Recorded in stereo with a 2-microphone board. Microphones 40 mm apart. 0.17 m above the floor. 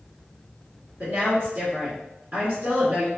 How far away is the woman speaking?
About 1.8 m.